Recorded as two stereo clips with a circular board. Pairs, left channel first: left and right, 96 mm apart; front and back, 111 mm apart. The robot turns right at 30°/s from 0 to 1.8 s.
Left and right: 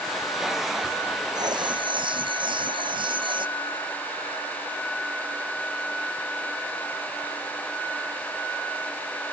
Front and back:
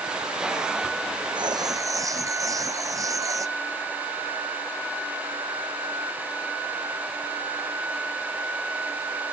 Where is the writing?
135° right; by 3.5 s 120° right.